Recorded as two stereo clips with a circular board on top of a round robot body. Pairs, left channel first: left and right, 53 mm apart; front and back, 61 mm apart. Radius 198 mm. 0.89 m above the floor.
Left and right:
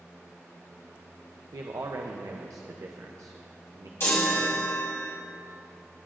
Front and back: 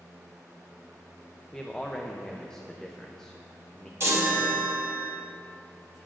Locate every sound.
1.5 s a man speaking: 80° right, 0.7 m
4.0 s a chime: 135° left, 1.1 m